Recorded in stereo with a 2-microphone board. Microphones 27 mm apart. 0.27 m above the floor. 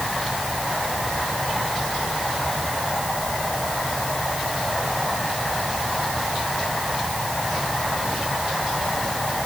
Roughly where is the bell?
I don't hear a bell.